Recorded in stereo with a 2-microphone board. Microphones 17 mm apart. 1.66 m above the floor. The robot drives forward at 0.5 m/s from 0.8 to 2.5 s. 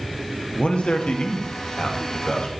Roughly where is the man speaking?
Left.